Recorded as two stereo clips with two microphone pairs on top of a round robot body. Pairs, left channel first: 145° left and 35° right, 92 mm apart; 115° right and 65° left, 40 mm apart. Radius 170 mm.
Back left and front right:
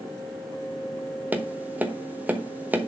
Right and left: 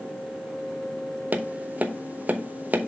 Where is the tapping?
30° left, 1.3 m.